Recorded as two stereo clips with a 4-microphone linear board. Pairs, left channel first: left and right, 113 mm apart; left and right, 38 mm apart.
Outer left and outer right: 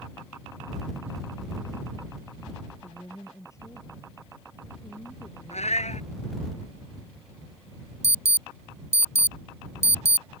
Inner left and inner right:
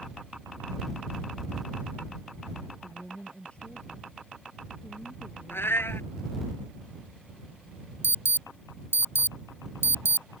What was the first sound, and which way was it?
A woman speaking, 25° left (ahead or behind).